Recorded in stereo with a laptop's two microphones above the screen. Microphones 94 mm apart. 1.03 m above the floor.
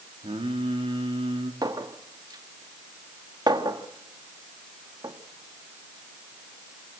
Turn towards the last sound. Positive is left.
turn(degrees=-45)  # may be behind; listen again after turning